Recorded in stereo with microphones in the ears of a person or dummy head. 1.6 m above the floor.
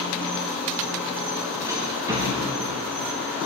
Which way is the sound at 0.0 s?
10° right (ahead or behind).